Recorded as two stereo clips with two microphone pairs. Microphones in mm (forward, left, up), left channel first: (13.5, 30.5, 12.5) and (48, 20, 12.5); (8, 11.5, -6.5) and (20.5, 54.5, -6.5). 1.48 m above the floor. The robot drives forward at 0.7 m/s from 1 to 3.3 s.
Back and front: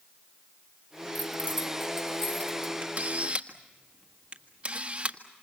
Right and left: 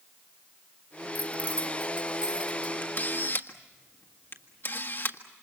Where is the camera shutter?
60° right, 1.8 m; by 5.2 s 70° right, 1.6 m.